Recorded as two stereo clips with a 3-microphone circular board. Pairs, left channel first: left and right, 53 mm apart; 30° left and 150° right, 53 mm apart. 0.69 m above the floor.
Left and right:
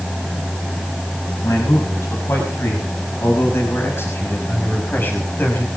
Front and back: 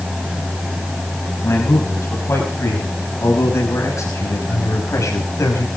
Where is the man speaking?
70° left, 6 m; by 5.7 s 40° left, 5 m.